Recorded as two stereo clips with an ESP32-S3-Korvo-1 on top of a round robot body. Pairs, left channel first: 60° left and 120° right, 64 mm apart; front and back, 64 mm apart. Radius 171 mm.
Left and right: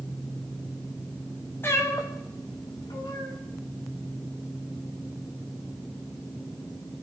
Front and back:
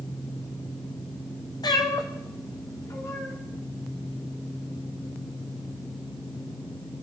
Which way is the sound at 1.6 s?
Straight ahead.